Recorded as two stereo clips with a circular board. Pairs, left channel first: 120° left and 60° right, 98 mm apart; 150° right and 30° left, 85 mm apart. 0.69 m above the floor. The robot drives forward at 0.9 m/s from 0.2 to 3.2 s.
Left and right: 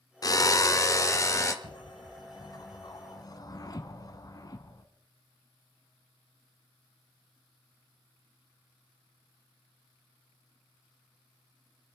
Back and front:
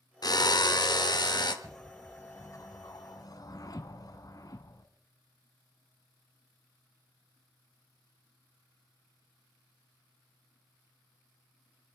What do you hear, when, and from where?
0.2 s a drill: 170° left, 0.5 m; by 1.5 s 175° left, 1.7 m
1.6 s a whoosh: 115° left, 0.5 m; by 4.8 s 170° left, 1.6 m